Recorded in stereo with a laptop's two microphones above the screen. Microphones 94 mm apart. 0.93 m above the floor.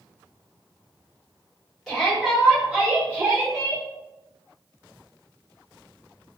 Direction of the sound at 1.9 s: 5° left (ahead or behind).